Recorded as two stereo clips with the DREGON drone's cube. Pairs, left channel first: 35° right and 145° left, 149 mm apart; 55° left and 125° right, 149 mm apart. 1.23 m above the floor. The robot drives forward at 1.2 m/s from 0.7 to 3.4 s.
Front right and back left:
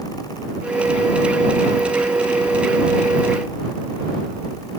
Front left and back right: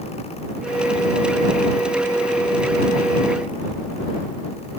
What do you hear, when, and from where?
Only background noise.